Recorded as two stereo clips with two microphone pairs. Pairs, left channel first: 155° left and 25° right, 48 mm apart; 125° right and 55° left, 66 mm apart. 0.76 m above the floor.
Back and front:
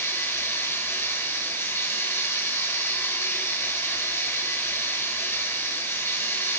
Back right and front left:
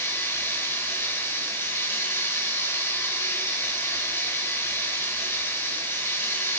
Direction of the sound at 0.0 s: 175° right.